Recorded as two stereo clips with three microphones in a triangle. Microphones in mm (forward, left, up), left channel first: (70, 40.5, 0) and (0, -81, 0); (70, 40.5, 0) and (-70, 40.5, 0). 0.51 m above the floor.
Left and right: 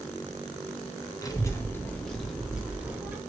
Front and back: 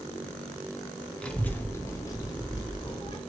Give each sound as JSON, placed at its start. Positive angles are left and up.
{"t": 1.2, "sound": "a child speaking", "azimuth_deg": 75, "distance_m": 0.8}